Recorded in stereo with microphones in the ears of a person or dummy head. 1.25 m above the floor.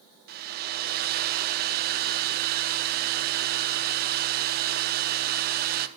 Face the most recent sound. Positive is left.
turn(degrees=-40)  # may be behind; listen again after turning